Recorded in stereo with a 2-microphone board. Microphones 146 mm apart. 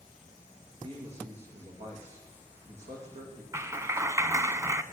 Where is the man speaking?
50° right (ahead or behind), 9.5 m.